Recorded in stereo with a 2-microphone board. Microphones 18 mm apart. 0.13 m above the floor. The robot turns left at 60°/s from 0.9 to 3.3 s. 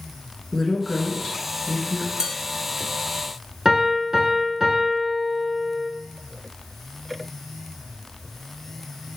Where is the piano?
25° right (ahead or behind), 0.8 m.